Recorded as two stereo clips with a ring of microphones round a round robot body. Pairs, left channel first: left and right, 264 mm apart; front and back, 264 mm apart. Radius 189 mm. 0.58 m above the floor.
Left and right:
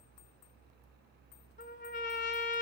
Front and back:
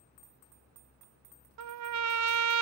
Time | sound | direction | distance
1.6 | a trumpet | 155° left | 0.5 m